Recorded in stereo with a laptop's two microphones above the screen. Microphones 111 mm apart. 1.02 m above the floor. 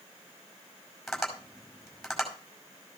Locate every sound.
1.1 s tapping: centre (ahead or behind), 5.5 m